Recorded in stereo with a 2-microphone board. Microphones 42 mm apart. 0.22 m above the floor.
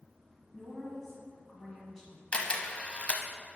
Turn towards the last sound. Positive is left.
turn(degrees=30)  # may be behind; listen again after turning